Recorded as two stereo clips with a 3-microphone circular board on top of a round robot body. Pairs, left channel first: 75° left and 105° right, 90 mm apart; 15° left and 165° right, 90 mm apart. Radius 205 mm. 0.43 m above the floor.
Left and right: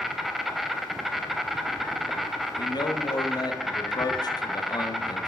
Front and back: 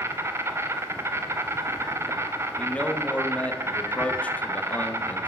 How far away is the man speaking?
About 1.0 m.